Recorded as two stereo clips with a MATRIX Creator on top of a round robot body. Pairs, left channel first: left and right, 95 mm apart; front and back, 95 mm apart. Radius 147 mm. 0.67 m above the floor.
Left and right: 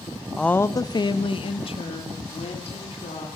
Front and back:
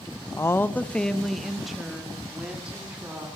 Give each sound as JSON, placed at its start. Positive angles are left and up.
{"t": 0.4, "sound": "a woman speaking", "azimuth_deg": 5, "distance_m": 0.6}